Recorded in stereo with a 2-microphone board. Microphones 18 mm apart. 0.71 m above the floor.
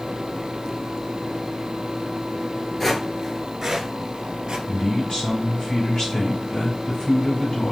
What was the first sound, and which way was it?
Footsteps, 15° left (ahead or behind).